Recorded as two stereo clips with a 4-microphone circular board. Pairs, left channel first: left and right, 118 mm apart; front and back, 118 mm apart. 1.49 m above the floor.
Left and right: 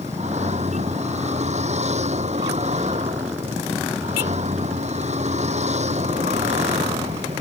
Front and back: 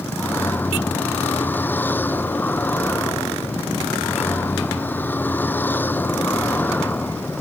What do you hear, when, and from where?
0.0 s a vehicle: 75° right